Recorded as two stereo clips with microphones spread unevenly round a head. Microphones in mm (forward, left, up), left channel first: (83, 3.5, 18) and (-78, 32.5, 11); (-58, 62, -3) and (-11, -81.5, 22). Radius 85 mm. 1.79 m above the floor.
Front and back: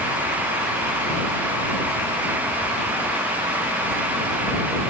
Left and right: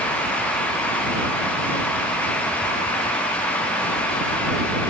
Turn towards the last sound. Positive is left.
No sound to turn to.